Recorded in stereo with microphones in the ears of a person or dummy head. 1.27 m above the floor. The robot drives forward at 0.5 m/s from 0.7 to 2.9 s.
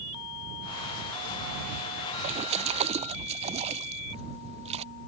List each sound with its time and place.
2.2 s a splash: 35° right (ahead or behind)